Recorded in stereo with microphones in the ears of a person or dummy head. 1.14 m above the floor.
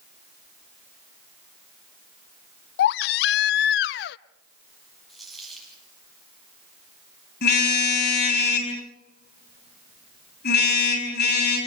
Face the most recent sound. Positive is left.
turn(degrees=65)  # may be behind; listen again after turning